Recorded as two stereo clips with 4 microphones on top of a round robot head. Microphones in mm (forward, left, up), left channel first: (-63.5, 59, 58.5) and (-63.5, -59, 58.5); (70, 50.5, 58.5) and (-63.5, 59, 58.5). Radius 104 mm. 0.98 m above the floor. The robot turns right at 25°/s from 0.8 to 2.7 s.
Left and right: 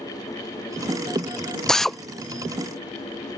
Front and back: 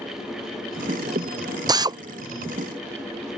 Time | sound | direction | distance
1.7 | a drill | 170° left | ?